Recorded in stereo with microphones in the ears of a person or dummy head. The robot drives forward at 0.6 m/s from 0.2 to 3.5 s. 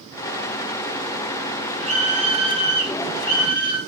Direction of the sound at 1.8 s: 40° right (ahead or behind).